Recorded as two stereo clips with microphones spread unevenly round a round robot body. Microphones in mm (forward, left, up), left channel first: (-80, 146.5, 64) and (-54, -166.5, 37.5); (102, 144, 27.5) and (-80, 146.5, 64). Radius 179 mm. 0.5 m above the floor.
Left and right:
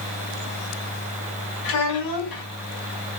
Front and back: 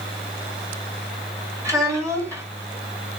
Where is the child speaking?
100° left, 1.9 m.